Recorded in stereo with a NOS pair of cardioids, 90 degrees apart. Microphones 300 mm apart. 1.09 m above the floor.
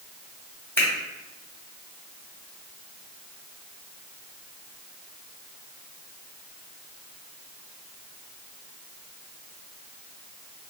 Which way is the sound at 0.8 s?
5° left.